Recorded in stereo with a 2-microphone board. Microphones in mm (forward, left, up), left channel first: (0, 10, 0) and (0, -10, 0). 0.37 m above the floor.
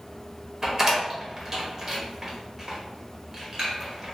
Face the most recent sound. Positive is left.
turn(degrees=-30)  # may be behind; listen again after turning